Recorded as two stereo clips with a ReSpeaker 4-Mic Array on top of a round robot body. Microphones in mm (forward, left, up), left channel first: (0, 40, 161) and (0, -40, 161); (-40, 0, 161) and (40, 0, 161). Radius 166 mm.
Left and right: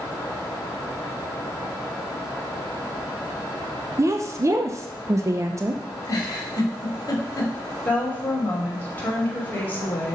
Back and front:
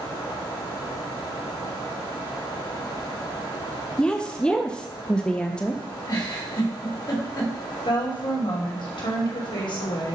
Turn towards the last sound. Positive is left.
turn(degrees=160)